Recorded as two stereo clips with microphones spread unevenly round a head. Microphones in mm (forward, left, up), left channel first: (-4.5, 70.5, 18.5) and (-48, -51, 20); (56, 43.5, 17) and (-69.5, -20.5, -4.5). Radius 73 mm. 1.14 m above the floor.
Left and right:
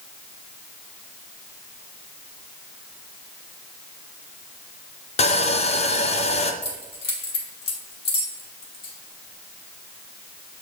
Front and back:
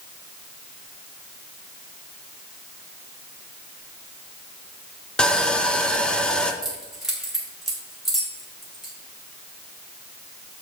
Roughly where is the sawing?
Left.